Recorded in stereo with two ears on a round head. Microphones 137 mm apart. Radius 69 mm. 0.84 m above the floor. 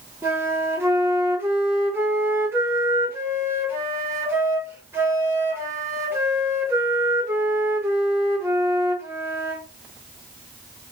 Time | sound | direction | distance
0.2 | a flute | 15° right (ahead or behind) | 1.0 m